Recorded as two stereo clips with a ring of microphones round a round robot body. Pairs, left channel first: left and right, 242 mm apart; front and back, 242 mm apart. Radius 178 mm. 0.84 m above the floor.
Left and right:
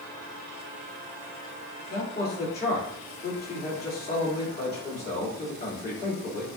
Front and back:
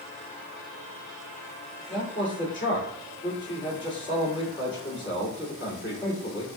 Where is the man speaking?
40° left, 2.5 m.